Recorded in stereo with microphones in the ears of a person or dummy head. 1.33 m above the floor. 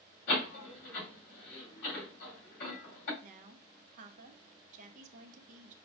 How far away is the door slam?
About 2.5 m.